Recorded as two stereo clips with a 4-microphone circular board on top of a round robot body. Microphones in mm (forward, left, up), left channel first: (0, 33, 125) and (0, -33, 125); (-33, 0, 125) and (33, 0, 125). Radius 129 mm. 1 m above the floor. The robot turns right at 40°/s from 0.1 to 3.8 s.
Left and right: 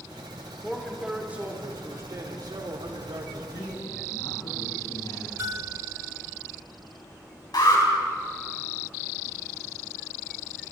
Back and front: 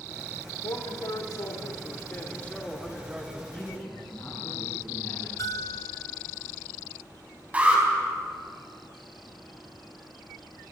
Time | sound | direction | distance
0.6 | a man speaking | 175° left | 4 m
3.5 | a man speaking | 95° left | 10 m
5.4 | a bell | 140° right | 0.8 m
7.5 | an alarm | 70° left | 5.5 m